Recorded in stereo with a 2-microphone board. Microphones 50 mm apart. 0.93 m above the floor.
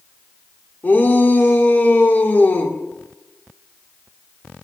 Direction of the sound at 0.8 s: 40° left (ahead or behind).